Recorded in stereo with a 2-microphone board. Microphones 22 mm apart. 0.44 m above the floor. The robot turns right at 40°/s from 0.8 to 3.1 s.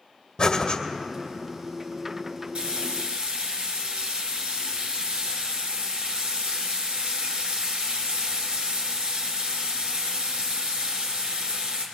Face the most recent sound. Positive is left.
turn(degrees=-75)  # may be behind; listen again after turning